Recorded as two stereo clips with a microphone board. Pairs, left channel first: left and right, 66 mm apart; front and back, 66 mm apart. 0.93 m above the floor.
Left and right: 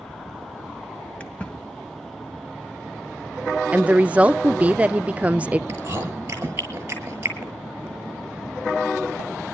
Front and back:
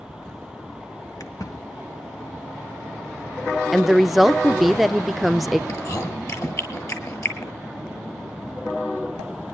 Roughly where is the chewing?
Ahead right.